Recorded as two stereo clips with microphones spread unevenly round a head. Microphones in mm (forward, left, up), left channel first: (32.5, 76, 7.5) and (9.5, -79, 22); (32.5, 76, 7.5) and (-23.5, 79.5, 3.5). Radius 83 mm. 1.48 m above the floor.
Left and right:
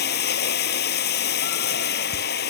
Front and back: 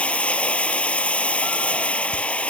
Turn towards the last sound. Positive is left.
turn(degrees=65)